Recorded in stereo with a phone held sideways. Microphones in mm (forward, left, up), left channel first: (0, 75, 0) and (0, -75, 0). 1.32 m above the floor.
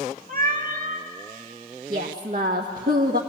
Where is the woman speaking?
85° right, 1.3 m.